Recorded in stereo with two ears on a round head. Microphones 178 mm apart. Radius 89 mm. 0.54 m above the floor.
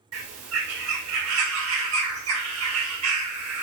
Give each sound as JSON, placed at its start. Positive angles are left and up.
{"t": 0.1, "sound": "a bird", "side_deg": -80, "distance_m": 1.0}